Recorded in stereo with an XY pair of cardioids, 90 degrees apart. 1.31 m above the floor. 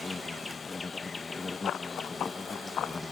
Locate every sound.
0.0 s an insect: 25° left
1.6 s running footsteps: 70° left